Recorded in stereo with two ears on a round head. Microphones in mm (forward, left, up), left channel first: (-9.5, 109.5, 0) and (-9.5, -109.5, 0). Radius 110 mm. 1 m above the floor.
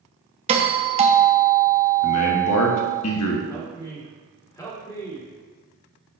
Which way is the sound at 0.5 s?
25° right (ahead or behind).